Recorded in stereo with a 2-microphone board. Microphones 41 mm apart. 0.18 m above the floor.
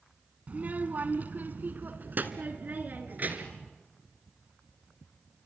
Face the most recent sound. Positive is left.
turn(degrees=-40)  # may be behind; listen again after turning